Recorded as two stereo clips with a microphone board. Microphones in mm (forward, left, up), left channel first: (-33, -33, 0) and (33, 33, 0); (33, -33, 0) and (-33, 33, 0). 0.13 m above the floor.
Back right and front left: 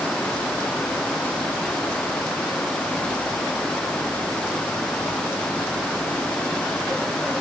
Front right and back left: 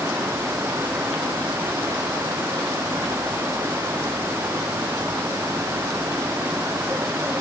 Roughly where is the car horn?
No car horn in this recording.